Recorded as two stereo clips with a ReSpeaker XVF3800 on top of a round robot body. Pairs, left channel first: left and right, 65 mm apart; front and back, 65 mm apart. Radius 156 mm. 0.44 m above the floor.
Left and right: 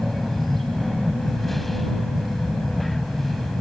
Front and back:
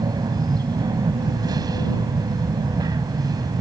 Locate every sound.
0.0 s an aircraft: straight behind